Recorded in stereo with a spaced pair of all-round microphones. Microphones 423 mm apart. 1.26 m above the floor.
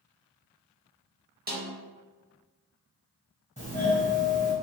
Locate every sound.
1.5 s a snare drum: 25° right (ahead or behind), 0.7 m
3.6 s a doorbell: 15° left (ahead or behind), 1.4 m